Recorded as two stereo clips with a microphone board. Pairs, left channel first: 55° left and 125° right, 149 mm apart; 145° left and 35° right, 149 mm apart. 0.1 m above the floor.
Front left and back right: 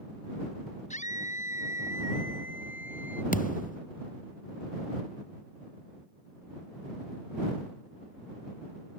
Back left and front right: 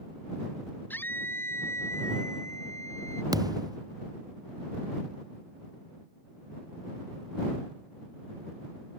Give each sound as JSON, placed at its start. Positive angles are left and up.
{"t": 0.9, "sound": "a scream", "azimuth_deg": 70}
{"t": 3.3, "sound": "a thud", "azimuth_deg": 30}